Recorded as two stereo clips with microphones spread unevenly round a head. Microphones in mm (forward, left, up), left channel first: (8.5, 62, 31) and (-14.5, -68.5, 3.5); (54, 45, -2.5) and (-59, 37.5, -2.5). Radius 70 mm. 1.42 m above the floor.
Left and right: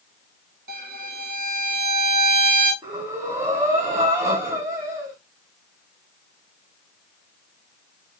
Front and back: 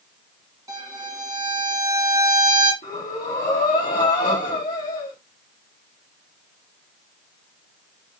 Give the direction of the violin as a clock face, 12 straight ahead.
4 o'clock.